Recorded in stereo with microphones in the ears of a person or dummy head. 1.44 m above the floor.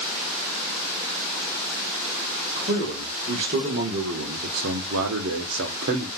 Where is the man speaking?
40° right (ahead or behind), 2 m; by 6.1 s 50° right (ahead or behind), 1.0 m.